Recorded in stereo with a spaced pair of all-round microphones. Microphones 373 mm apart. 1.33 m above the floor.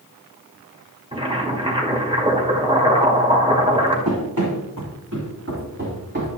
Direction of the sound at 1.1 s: 15° right (ahead or behind).